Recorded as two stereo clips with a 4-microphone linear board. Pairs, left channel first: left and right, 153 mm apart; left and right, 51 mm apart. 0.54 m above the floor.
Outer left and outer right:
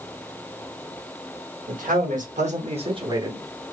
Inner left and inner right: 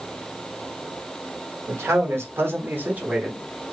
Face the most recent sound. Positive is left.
turn(degrees=-15)  # may be behind; listen again after turning